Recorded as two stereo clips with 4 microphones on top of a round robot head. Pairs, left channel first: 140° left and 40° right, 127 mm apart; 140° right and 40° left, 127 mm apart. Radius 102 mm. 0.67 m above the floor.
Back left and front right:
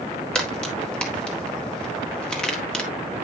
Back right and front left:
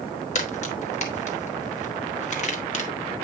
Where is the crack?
140° right, 1.7 m.